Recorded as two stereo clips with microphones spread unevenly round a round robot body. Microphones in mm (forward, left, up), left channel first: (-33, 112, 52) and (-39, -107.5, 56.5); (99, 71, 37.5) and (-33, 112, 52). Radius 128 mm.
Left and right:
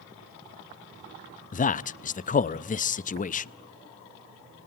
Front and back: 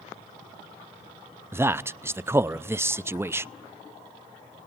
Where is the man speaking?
90° left, 0.5 m.